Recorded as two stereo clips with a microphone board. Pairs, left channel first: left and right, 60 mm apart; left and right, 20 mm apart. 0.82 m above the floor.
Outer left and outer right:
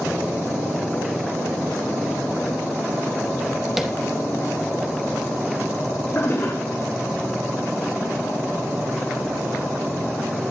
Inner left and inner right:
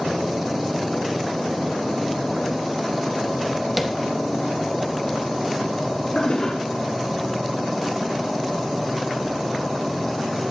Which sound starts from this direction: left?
A toilet flushing, at 6.2 s.